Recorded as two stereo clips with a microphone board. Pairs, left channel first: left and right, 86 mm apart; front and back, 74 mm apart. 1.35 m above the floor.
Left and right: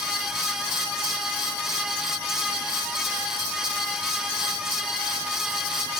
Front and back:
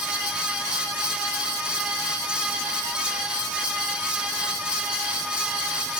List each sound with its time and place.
Only background noise.